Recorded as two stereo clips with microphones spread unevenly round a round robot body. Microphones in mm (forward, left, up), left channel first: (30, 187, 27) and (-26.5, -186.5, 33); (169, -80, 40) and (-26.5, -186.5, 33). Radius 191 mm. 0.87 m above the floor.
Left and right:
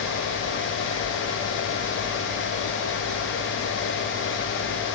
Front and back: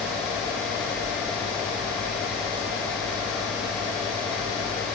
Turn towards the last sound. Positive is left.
No sound to turn to.